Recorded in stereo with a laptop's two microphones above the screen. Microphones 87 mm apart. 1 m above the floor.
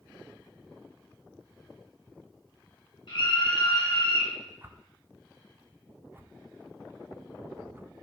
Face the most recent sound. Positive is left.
turn(degrees=-25)  # may be behind; listen again after turning